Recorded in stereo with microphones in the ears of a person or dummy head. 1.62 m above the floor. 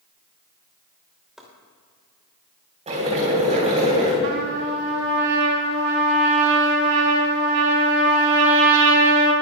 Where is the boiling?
35° right (ahead or behind), 3.5 m.